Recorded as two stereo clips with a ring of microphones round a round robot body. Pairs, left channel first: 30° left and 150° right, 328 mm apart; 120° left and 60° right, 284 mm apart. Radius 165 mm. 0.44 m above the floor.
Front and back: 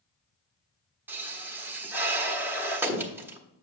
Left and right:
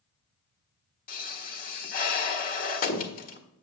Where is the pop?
130° left, 1.3 m.